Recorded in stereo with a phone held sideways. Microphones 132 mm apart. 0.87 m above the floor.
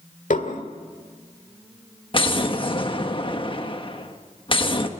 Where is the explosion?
40° left (ahead or behind), 1.3 m.